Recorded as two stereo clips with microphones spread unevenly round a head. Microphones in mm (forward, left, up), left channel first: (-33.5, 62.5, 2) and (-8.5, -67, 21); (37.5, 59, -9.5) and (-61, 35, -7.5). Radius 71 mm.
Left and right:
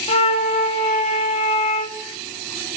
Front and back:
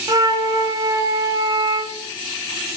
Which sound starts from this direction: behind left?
A flute, at 0.1 s.